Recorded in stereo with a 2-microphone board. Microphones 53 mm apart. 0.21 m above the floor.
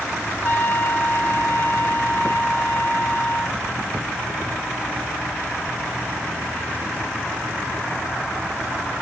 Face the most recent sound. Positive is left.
turn(degrees=45)  # may be behind; listen again after turning